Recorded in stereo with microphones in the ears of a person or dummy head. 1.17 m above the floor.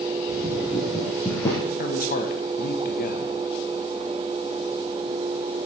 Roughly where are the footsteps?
Right.